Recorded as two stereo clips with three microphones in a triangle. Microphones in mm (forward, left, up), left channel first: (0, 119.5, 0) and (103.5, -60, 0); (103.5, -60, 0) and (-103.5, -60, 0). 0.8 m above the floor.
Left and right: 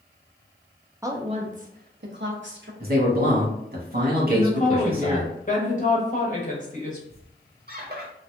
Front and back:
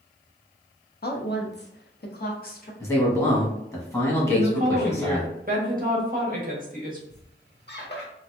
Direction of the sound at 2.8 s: 75° right.